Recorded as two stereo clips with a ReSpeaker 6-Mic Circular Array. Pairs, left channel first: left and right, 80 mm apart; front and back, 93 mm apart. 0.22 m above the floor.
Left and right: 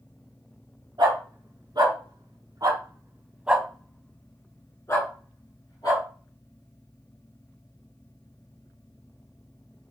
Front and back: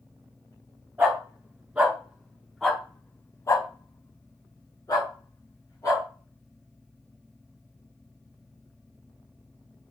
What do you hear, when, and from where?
1.0 s a dog barking: 110° right, 1.8 m; by 6.0 s 45° left, 1.9 m